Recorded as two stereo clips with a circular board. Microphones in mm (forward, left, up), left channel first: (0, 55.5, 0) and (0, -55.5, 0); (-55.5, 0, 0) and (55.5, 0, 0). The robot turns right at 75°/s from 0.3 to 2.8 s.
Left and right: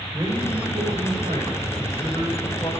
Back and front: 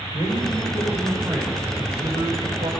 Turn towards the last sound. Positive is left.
turn(degrees=35)